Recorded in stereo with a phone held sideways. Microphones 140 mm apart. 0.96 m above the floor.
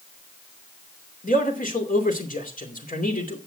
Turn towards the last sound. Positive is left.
turn(degrees=80)